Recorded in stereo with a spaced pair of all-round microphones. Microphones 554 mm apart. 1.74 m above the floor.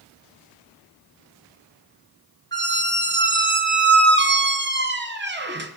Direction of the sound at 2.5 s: 20° right (ahead or behind).